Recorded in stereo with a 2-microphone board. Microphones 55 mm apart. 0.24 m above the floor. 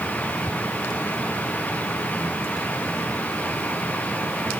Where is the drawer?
I don't hear a drawer.